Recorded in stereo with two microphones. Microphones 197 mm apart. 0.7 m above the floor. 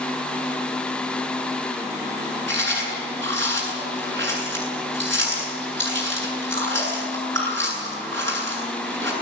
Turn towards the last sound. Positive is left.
turn(degrees=-75)  # may be behind; listen again after turning